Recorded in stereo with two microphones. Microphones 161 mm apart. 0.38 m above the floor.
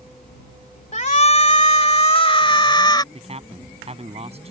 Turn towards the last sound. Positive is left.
turn(degrees=-40)  # may be behind; listen again after turning